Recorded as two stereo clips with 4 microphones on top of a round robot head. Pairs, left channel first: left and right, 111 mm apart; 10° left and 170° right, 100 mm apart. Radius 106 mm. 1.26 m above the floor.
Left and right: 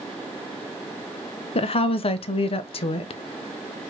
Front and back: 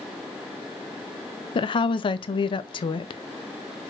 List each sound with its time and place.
1.6 s a woman speaking: 50° left, 0.5 m